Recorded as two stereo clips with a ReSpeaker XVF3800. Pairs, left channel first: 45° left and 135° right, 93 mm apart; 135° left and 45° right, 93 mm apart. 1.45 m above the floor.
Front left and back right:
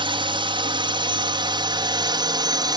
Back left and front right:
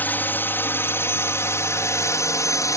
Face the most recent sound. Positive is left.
turn(degrees=-175)